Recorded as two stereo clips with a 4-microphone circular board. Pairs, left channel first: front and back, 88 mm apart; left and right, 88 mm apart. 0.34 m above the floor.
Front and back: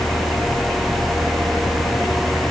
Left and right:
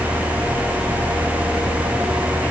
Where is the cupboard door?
I don't hear a cupboard door.